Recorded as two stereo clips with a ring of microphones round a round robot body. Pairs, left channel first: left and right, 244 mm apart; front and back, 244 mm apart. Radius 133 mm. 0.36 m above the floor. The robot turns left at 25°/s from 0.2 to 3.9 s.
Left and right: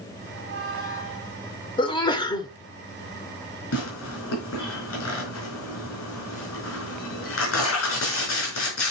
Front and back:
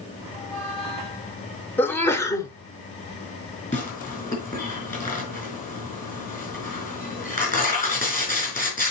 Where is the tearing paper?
60° left, 5.5 m.